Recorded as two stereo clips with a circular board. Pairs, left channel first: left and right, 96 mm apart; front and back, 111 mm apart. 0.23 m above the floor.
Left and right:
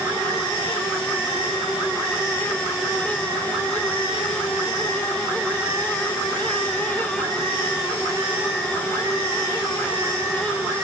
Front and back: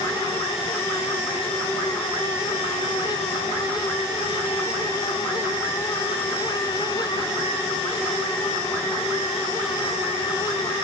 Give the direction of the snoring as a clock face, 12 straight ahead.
I don't hear snoring.